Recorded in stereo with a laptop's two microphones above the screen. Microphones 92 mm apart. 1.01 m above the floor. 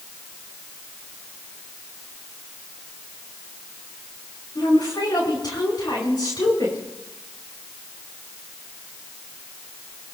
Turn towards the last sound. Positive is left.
turn(degrees=45)  # may be behind; listen again after turning